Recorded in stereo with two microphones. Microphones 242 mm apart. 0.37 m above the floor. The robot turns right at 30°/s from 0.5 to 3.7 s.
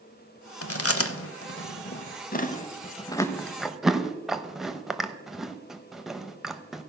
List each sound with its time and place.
0.6 s chewing: 70° left (ahead or behind), 0.6 m; by 6.8 s centre (ahead or behind), 0.6 m